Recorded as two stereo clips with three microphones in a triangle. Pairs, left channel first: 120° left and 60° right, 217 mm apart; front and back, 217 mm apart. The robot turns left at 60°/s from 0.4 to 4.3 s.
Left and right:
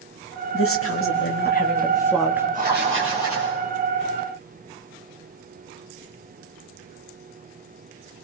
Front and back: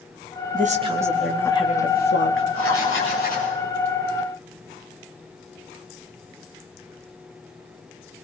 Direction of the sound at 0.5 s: 130° left.